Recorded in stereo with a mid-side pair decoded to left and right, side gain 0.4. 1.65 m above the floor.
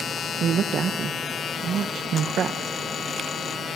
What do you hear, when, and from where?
0.4 s a woman speaking: 65° right, 1.3 m